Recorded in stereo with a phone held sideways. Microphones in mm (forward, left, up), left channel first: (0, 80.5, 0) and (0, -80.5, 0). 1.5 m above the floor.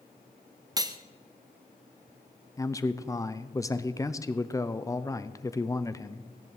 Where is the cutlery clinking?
25° right (ahead or behind), 0.7 m.